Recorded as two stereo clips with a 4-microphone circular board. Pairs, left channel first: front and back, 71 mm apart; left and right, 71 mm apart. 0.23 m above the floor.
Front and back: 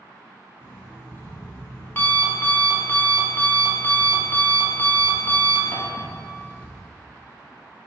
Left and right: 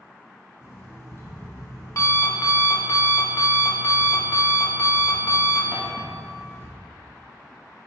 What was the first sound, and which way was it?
An alarm clock, 55° left.